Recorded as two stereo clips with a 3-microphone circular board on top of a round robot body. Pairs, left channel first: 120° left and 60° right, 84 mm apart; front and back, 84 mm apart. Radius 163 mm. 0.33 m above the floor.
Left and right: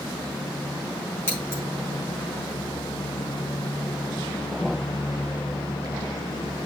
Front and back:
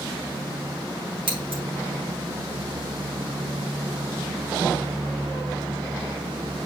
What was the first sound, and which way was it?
Scissors, straight behind.